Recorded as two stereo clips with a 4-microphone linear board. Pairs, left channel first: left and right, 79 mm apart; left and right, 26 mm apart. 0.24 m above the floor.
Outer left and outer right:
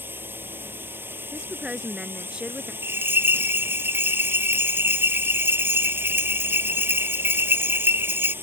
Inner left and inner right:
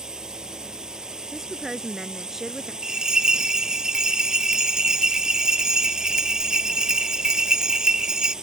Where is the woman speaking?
10° right (ahead or behind).